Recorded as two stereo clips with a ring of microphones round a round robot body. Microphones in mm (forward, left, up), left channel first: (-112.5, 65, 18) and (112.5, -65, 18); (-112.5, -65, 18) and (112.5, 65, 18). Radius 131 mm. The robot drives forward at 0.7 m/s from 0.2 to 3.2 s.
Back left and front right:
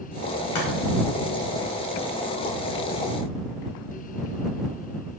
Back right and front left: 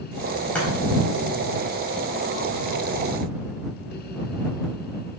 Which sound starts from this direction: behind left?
Chopping, at 0.6 s.